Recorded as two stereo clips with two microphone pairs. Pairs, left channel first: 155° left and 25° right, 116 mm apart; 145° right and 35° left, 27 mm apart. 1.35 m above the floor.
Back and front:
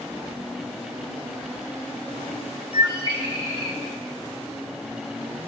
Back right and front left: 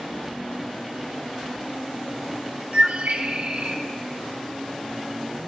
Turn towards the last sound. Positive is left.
turn(degrees=15)